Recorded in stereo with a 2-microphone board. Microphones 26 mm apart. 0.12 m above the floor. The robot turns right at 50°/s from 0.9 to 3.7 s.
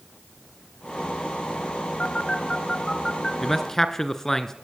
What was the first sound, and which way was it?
A phone buzzing, 45° left (ahead or behind).